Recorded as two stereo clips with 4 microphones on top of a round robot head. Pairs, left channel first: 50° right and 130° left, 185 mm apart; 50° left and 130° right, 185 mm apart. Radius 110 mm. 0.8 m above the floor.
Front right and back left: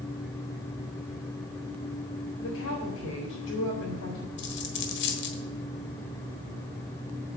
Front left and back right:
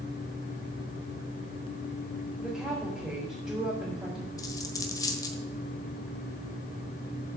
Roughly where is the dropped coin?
Ahead.